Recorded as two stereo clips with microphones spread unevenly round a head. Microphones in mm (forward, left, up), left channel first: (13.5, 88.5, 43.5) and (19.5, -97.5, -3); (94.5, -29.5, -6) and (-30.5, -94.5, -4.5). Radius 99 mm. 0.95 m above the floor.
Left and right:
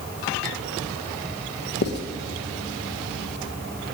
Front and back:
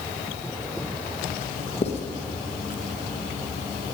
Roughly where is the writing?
Ahead left.